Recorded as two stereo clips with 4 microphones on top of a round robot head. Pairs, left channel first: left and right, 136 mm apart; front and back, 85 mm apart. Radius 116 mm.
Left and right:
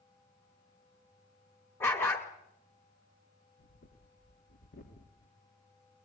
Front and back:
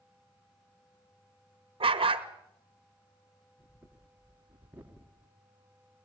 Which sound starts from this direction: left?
Breathing, at 3.6 s.